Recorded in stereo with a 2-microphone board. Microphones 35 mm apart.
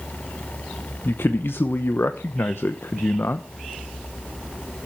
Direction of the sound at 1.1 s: 85° left.